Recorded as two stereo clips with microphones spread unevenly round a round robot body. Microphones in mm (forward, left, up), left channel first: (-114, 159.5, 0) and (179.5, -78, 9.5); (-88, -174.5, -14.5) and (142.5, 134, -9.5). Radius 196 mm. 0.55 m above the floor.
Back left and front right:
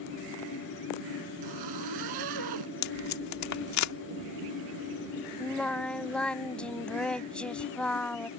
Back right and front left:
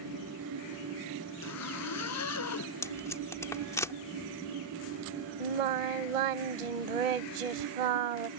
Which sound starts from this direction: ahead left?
Singing, at 5.4 s.